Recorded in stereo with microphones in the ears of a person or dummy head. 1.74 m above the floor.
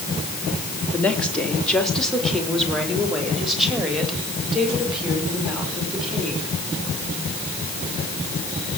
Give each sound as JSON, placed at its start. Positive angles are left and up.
{"t": 0.9, "sound": "a woman speaking", "side_deg": 10, "distance_m": 3.5}